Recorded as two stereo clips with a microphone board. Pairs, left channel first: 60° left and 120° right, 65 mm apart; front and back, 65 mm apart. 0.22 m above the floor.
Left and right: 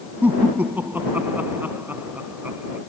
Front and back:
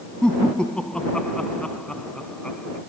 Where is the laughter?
70° right.